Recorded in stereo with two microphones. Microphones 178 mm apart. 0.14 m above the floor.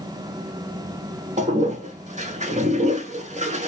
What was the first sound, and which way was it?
A toilet flushing, 40° right (ahead or behind).